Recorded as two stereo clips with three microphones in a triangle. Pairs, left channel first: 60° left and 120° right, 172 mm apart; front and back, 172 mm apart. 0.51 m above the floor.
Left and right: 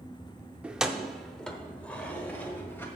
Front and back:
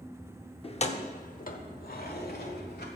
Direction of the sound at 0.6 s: 40° right.